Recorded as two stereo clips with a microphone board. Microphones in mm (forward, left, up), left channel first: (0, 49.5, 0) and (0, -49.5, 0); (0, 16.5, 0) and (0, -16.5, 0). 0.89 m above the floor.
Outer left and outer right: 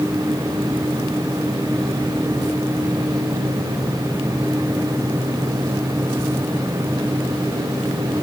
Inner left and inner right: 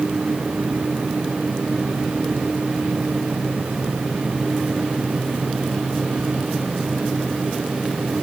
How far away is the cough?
No cough in this recording.